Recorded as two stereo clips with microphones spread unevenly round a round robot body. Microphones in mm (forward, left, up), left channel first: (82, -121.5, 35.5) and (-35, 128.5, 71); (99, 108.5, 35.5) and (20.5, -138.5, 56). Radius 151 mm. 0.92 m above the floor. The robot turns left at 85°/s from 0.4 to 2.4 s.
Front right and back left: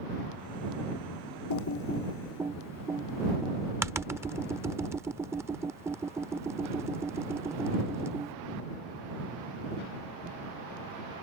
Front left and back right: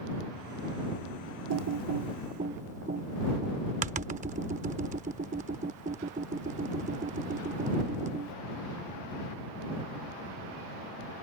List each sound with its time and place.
1.5 s typing on a keyboard: 95° right; by 8.3 s 170° right